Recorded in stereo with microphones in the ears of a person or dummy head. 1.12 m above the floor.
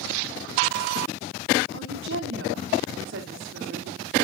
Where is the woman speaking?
60° right (ahead or behind), 2.5 m.